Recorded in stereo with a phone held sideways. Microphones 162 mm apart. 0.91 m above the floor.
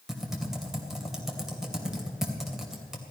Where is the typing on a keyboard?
5° right (ahead or behind), 2.5 m.